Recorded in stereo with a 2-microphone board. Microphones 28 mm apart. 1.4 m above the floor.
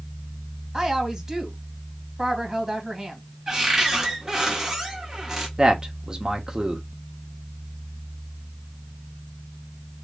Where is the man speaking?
25° right (ahead or behind), 1.3 m.